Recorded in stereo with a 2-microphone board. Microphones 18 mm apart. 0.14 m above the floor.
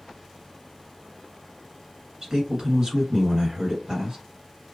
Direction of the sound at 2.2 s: 40° right (ahead or behind).